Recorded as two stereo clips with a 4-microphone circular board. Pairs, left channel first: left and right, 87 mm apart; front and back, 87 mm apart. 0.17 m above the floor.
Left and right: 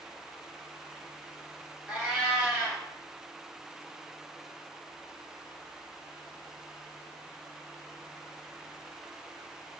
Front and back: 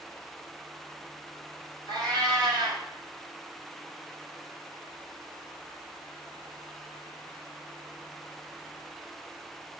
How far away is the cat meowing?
About 1.0 m.